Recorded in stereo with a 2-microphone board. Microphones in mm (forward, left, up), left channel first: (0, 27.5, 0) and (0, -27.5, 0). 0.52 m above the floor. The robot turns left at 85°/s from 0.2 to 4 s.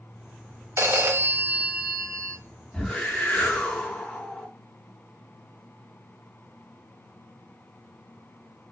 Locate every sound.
0.8 s a phone ringing: 75° right, 0.5 m; by 2.4 s 145° left, 0.5 m
2.7 s a whoosh: 10° left (ahead or behind), 0.7 m; by 4.5 s 15° left (ahead or behind), 0.7 m